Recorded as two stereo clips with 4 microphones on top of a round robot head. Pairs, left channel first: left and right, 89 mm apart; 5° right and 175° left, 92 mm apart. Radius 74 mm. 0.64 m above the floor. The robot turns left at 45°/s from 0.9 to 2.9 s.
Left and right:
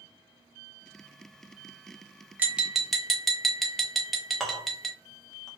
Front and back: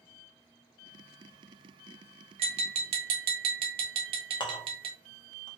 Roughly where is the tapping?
Behind.